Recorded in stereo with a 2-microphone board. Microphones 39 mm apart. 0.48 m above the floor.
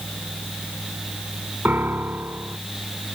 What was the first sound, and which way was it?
A piano, 55° right (ahead or behind).